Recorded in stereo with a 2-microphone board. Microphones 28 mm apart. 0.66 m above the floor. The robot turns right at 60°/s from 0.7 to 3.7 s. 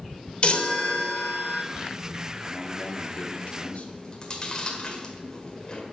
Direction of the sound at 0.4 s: 45° left.